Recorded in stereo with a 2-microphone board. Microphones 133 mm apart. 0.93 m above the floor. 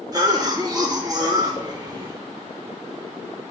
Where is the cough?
25° right (ahead or behind), 0.6 m.